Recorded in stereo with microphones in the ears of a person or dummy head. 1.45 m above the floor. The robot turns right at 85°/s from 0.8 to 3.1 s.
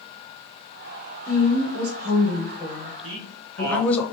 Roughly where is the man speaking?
Right.